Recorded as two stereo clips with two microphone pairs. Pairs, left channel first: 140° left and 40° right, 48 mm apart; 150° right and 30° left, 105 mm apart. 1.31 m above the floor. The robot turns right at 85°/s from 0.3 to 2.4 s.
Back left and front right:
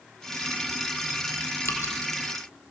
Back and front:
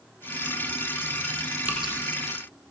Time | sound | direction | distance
1.6 | dripping | 105° left | 8 m